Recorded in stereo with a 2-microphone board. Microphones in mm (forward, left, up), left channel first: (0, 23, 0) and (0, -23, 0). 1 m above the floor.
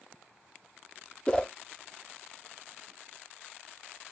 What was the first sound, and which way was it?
A whoosh, 20° left (ahead or behind).